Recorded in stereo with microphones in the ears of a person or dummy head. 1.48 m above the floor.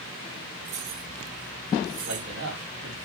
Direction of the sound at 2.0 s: 75° right (ahead or behind).